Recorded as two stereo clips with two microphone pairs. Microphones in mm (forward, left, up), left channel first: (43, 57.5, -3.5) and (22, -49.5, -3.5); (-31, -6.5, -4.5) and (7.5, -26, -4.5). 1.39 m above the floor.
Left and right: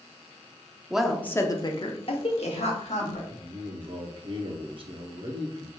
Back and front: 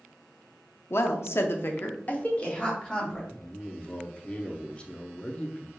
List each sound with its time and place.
0.9 s a woman speaking: 175° left, 0.5 m; by 3.2 s 85° left, 1.3 m
3.3 s a man speaking: 140° right, 0.7 m